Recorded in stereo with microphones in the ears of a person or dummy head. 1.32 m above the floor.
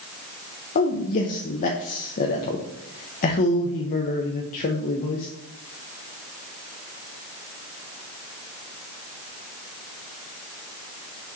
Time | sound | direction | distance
0.8 | a man speaking | 45° left (ahead or behind) | 0.9 m